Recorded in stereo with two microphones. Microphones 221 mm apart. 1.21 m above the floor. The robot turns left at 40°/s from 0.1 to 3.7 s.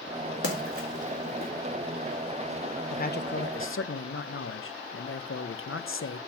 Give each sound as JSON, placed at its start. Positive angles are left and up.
{"t": 0.4, "sound": "a splash", "side_deg": 85, "distance_m": 2.0}
{"t": 2.9, "sound": "a man speaking", "azimuth_deg": 145, "distance_m": 0.7}